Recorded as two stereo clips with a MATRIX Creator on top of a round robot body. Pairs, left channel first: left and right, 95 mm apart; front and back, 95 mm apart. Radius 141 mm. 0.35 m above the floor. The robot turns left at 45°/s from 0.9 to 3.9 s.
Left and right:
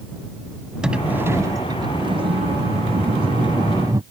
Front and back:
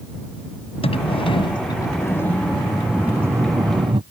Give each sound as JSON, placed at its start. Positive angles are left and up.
{"t": 0.8, "sound": "a sliding door", "azimuth_deg": -10}